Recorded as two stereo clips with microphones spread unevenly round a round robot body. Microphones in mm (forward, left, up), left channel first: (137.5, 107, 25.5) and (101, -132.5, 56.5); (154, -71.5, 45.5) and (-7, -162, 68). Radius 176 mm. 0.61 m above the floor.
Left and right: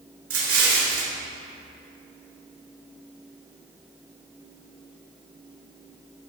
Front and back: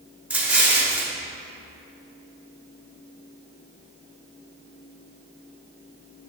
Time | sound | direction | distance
0.3 | an explosion | 65° right | 1.8 m